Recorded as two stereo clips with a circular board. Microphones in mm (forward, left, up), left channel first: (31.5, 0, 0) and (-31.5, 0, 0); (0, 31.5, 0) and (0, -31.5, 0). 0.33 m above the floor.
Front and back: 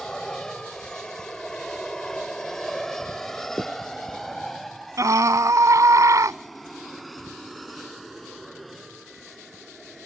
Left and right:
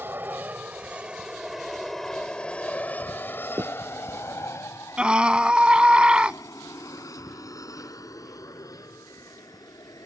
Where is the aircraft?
75° right; by 10.1 s 90° left.